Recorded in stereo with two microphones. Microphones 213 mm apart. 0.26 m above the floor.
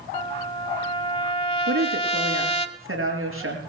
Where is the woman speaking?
75° right (ahead or behind), 5 m.